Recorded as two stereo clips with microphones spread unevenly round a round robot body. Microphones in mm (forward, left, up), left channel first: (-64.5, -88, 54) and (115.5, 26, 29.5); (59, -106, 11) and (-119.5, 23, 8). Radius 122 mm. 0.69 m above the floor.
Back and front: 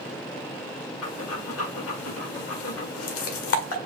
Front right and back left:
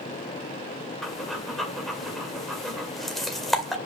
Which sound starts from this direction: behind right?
Breathing, at 1.0 s.